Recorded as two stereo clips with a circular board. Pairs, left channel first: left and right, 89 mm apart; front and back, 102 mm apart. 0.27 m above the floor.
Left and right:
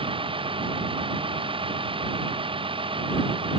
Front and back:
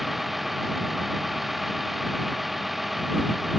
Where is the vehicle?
90° right.